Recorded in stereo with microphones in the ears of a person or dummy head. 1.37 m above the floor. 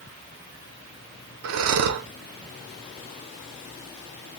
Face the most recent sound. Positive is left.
turn(degrees=-75)  # may be behind; listen again after turning